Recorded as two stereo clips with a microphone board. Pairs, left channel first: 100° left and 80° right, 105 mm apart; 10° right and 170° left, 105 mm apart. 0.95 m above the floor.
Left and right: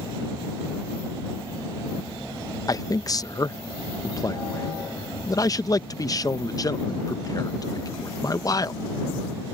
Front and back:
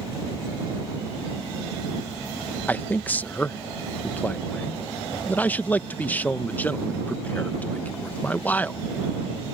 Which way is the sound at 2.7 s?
60° left.